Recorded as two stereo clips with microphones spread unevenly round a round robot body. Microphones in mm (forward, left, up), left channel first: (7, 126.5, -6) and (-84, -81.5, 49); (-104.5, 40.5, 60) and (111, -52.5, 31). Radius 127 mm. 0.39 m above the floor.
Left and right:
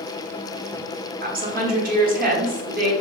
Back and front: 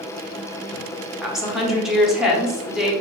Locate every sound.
1.2 s a woman speaking: 95° right, 0.9 m